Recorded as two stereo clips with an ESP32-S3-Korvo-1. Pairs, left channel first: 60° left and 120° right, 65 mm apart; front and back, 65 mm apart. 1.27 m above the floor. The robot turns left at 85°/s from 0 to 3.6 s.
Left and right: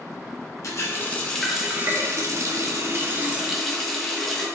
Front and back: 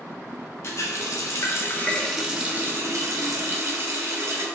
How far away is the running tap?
About 0.8 m.